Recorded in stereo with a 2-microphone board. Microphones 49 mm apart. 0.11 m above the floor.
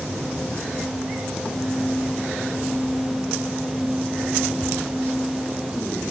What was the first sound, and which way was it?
Only background noise.